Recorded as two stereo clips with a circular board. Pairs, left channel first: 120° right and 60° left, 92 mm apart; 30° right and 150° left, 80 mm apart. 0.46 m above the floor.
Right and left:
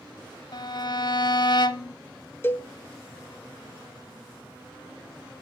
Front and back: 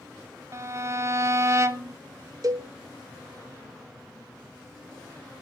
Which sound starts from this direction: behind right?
A violin, at 0.5 s.